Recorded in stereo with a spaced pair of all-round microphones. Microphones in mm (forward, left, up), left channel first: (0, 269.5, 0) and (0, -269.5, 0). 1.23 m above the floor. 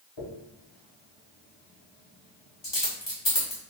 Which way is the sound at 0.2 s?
50° left (ahead or behind).